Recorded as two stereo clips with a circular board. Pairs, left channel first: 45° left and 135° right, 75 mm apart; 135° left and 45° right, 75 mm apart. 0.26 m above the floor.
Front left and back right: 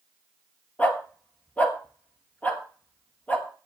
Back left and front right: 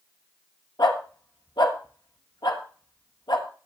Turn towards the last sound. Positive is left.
turn(degrees=115)